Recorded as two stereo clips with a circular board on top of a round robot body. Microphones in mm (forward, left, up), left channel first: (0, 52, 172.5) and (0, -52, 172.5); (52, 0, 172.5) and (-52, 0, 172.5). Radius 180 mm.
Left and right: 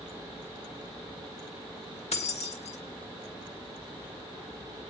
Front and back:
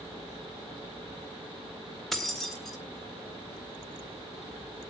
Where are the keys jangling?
90° left, 3.5 m.